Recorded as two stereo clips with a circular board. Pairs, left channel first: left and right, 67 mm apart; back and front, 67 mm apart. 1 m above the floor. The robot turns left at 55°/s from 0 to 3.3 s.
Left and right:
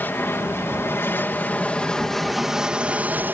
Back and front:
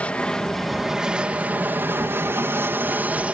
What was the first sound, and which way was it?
An aircraft, 125° left.